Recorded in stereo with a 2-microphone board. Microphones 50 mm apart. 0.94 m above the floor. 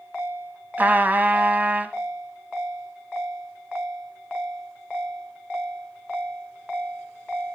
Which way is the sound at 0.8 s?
35° right (ahead or behind).